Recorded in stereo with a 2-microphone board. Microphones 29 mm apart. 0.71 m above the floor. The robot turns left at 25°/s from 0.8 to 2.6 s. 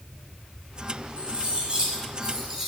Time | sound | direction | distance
1.2 | cutlery clinking | 130° right | 1.8 m